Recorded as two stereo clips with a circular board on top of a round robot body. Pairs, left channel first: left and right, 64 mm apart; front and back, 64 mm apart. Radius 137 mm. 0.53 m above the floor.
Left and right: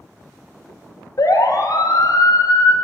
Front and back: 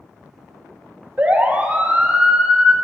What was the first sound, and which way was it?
A siren, 115° left.